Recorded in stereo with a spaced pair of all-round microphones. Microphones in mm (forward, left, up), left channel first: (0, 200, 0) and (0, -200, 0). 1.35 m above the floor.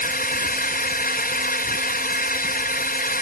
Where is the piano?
No piano in this recording.